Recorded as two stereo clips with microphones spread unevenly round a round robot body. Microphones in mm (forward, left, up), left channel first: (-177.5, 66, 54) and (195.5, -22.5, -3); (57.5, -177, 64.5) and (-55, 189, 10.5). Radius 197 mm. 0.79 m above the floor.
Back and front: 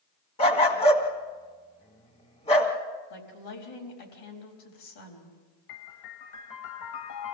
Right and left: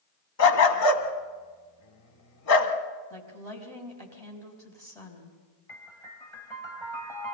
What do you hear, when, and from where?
0.4 s a dog barking: 120° right, 1.6 m
3.1 s a woman speaking: 155° right, 4.5 m
5.7 s a piano: 155° right, 1.3 m